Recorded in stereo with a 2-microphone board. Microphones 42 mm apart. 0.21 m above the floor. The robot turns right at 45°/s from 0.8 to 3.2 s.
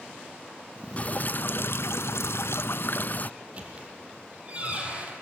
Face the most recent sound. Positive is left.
turn(degrees=-30)  # may be behind; listen again after turning